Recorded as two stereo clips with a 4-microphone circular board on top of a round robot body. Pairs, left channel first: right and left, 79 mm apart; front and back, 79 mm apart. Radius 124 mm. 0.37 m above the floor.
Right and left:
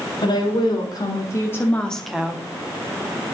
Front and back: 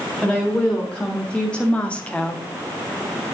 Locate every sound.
0.2 s a woman speaking: 85° right, 1.9 m; by 2.5 s 55° left, 1.0 m